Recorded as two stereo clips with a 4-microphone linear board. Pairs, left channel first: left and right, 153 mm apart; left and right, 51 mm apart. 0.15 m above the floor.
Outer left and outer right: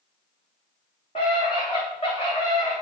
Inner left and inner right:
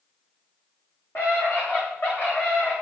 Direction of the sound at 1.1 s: 45° left (ahead or behind).